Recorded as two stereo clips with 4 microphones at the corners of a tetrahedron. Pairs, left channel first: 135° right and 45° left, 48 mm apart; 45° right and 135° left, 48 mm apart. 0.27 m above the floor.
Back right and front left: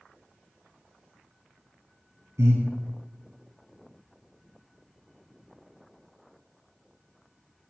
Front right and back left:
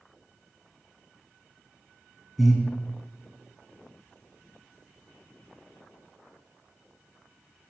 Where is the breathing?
45° left, 3 m.